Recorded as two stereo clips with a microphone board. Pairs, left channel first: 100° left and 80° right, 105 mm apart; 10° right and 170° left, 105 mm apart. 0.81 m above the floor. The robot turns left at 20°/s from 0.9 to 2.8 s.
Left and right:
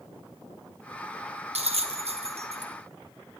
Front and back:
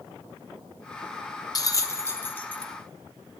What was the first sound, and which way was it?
A bell, 70° right.